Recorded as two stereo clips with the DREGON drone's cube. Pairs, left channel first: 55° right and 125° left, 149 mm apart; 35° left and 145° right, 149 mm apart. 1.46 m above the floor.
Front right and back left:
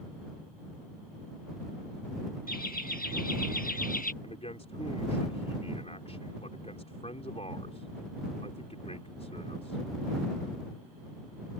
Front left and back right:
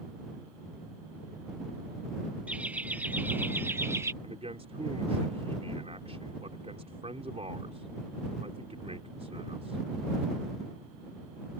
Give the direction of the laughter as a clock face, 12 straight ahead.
2 o'clock.